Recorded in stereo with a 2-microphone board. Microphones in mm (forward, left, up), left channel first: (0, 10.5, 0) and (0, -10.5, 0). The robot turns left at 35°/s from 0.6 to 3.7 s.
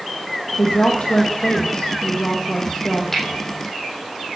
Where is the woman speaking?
125° left, 3.5 m; by 3.0 s 40° left, 3.5 m.